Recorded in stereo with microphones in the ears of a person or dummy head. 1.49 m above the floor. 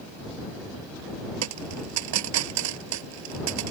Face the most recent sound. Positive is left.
turn(degrees=-70)  # may be behind; listen again after turning